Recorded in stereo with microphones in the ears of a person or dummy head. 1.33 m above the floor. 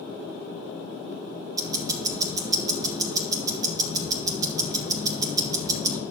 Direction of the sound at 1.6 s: 25° right (ahead or behind).